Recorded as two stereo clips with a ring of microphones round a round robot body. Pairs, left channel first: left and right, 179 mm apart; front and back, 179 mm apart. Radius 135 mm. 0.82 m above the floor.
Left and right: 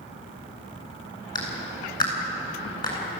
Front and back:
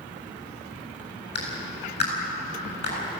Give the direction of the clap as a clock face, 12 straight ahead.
11 o'clock.